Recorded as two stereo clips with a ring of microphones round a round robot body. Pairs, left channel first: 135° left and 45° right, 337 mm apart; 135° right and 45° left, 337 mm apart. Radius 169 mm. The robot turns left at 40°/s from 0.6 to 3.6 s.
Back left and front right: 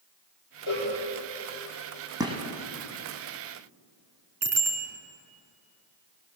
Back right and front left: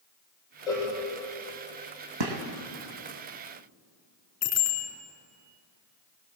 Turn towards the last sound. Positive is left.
turn(degrees=-90)